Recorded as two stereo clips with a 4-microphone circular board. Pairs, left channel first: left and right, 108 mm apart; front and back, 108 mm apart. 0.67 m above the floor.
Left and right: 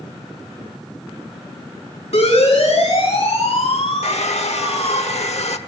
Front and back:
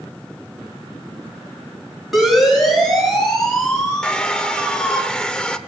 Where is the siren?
90° left, 7 m; by 5.0 s 80° left, 5 m.